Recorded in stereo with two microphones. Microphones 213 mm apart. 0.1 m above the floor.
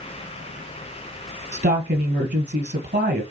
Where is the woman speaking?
55° right (ahead or behind), 2.5 m.